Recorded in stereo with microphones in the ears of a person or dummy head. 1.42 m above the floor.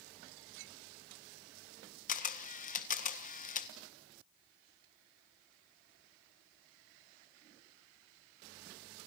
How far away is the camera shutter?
About 1.5 m.